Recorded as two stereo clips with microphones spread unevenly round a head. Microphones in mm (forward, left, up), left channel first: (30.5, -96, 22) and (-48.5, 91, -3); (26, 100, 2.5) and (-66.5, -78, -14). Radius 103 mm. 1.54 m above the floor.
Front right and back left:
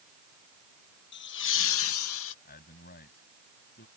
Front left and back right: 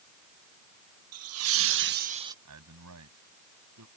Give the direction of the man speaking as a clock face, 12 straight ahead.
4 o'clock.